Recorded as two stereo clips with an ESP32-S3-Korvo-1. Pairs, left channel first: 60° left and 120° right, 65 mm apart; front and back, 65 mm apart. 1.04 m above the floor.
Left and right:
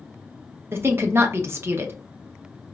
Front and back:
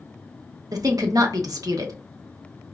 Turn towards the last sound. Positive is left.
turn(degrees=-170)